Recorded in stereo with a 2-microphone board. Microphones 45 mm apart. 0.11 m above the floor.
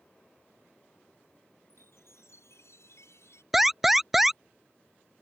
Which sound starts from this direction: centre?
An alarm, at 3.5 s.